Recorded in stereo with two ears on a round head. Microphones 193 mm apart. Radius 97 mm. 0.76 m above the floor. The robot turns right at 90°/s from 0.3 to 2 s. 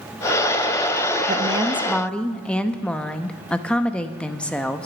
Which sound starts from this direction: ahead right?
A woman speaking, at 1.3 s.